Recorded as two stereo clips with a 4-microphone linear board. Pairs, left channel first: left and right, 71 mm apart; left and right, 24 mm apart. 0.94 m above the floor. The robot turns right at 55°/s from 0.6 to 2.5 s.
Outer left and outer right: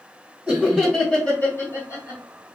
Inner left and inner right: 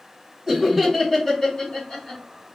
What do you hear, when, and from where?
0.5 s laughter: 10° right (ahead or behind), 1.4 m; by 2.2 s 55° left (ahead or behind), 1.4 m